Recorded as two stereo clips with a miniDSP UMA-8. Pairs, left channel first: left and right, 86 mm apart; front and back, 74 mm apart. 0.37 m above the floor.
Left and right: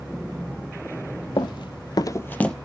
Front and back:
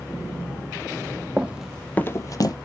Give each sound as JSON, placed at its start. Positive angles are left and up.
{"t": 1.4, "sound": "running footsteps", "azimuth_deg": 110, "distance_m": 0.9}